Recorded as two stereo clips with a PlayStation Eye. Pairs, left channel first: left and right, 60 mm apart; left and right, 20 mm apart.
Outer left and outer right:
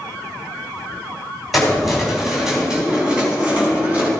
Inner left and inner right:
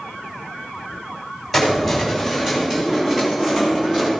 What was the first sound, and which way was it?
Keys jangling, centre (ahead or behind).